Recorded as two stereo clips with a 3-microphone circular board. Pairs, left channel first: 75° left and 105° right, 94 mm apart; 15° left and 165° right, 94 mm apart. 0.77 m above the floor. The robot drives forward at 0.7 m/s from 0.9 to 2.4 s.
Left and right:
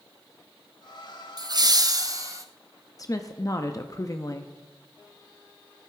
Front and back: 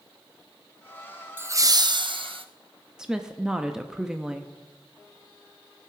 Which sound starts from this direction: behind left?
A woman speaking, at 3.0 s.